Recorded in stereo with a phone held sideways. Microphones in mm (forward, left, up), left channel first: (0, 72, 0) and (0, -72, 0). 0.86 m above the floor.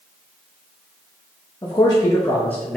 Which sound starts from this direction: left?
A man speaking, at 1.6 s.